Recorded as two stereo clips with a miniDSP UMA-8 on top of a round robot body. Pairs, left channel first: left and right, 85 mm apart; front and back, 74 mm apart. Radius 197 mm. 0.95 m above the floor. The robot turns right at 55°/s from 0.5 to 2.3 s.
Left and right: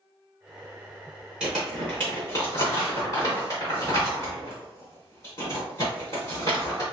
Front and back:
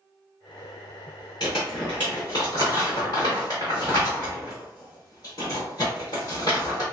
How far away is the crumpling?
About 0.8 m.